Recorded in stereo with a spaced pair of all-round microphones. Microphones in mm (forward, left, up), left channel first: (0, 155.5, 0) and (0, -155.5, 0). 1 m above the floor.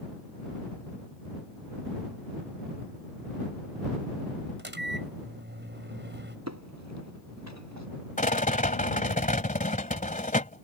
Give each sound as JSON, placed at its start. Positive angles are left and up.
{"t": 4.6, "sound": "a microwave", "side_deg": -35}
{"t": 6.5, "sound": "footsteps", "side_deg": -55}
{"t": 8.2, "sound": "a rattle", "side_deg": 25}